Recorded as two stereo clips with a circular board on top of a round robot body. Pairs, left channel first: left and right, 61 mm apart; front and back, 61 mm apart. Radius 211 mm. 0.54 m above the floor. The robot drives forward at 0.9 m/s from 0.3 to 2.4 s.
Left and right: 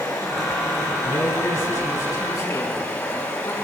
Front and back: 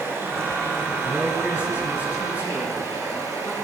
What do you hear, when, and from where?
0.0 s running water: 130° left, 6 m; by 3.6 s 140° left, 7 m
1.0 s a man speaking: 110° left, 8.5 m; by 3.5 s 115° left, 9 m